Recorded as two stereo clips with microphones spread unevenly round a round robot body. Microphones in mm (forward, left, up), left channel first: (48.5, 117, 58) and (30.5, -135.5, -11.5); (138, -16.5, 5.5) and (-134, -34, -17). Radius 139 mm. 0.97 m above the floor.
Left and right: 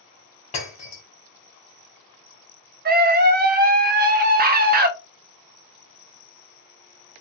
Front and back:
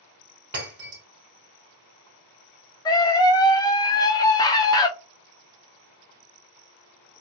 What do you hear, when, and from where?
0.5 s breaking glass: 135° left, 1.6 m
2.9 s a scream: 75° right, 0.6 m